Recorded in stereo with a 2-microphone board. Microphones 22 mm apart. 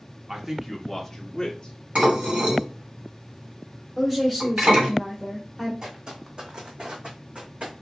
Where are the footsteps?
35° right (ahead or behind), 1.5 m; by 7.7 s 75° right (ahead or behind), 1.8 m.